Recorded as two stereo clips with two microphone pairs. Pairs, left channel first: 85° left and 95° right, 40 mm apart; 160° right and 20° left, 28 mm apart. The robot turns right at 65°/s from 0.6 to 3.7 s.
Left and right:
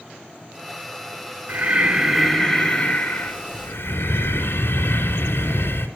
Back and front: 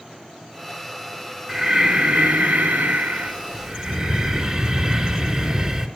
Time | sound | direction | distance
1.5 | breathing | 50° right | 3 m